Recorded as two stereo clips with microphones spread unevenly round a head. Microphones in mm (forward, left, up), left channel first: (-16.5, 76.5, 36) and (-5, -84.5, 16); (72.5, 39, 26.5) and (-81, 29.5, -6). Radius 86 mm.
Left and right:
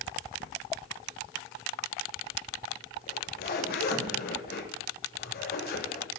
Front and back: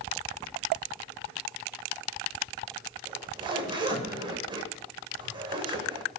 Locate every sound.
3.1 s a zipper: 120° left, 7.5 m